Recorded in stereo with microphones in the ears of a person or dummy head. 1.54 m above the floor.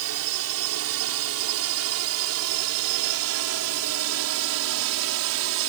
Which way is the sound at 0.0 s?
75° right (ahead or behind).